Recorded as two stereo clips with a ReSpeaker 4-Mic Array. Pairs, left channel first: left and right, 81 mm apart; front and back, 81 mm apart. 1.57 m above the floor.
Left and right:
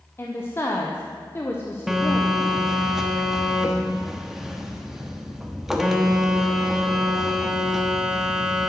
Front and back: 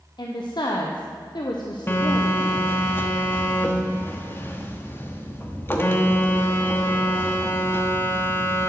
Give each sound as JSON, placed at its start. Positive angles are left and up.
{"t": 0.2, "sound": "a woman speaking", "azimuth_deg": 30, "distance_m": 1.0}
{"t": 1.9, "sound": "a phone buzzing", "azimuth_deg": -10, "distance_m": 1.1}